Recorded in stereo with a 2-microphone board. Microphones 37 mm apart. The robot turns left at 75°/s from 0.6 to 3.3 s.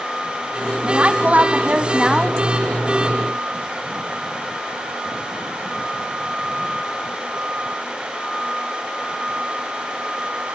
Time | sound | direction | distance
0.8 | a woman speaking | 50° right | 1.5 m